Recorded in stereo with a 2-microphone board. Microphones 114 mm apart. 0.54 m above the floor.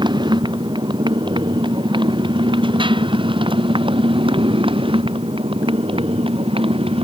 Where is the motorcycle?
40° right (ahead or behind); by 7.0 s 55° right (ahead or behind).